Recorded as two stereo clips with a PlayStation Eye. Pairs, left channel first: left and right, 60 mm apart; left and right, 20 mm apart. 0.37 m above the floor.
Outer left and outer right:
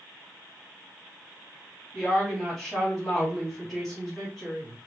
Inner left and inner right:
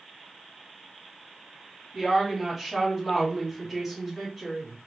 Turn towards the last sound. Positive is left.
turn(degrees=-5)  # may be behind; listen again after turning